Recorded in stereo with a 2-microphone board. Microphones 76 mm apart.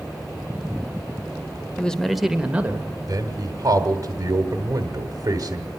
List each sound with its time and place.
1.8 s a man speaking: 15° left (ahead or behind), 1.3 m; by 2.9 s 25° right (ahead or behind), 1.4 m
3.1 s a man speaking: 40° right (ahead or behind), 1.7 m